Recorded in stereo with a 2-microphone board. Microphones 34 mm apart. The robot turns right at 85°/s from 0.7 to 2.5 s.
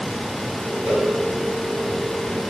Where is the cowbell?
40° right (ahead or behind), 2.5 m; by 1.1 s 20° right (ahead or behind), 2.5 m.